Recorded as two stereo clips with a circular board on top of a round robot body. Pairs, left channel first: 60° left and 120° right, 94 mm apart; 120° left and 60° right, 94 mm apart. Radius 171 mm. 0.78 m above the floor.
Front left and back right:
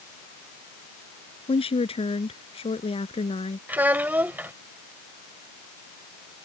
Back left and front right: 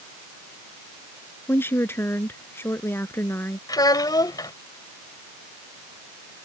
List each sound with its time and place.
1.5 s a woman speaking: 55° left
3.7 s a child speaking: 170° left